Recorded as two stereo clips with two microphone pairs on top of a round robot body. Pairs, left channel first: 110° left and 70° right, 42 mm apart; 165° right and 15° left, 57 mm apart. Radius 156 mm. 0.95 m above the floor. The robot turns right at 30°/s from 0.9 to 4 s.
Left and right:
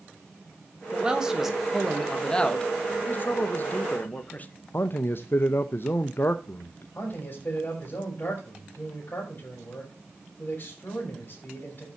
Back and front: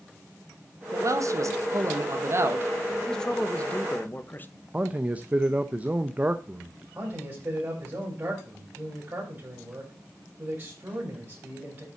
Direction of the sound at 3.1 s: 110° left.